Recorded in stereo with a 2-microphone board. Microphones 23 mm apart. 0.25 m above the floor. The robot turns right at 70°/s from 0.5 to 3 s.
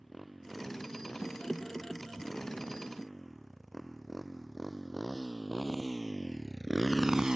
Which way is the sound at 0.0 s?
5° right (ahead or behind).